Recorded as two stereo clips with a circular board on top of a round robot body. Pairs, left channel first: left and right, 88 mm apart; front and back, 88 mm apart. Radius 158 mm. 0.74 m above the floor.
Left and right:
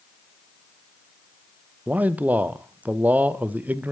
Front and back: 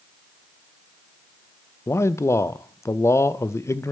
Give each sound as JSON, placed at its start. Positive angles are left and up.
{"t": 1.9, "sound": "a man speaking", "azimuth_deg": -30, "distance_m": 0.5}